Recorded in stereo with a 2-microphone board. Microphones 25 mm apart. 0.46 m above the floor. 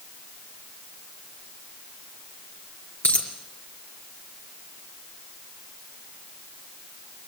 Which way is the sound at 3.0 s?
75° left (ahead or behind).